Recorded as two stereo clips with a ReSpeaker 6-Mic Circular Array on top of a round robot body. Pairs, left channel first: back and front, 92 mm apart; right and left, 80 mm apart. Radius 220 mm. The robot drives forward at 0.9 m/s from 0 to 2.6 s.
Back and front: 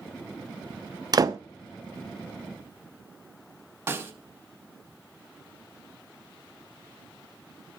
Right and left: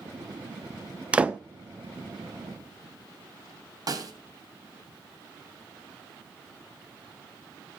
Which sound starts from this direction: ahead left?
A snare drum, at 3.9 s.